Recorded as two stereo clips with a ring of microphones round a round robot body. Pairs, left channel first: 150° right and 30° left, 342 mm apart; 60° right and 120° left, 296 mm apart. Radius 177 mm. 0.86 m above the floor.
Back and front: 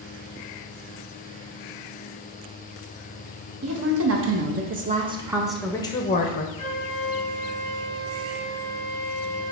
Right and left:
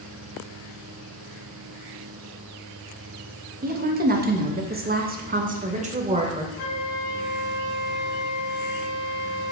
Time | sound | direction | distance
3.6 | a woman speaking | 65° left | 1.4 m
6.6 | a flute | 75° right | 2.5 m